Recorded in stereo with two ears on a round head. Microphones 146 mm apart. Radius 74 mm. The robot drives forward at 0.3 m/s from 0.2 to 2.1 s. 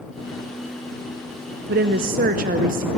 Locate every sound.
1.7 s a woman speaking: 65° right (ahead or behind), 0.7 m; by 2.9 s 55° right (ahead or behind), 0.8 m